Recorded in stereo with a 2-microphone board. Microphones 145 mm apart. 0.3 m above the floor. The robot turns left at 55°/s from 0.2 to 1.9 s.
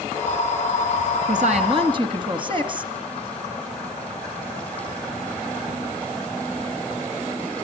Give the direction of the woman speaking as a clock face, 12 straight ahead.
4 o'clock.